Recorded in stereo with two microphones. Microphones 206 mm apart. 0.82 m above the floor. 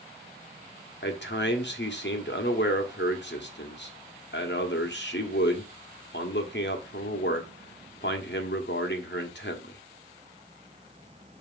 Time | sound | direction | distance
1.0 | a man speaking | 60° left (ahead or behind) | 1.6 m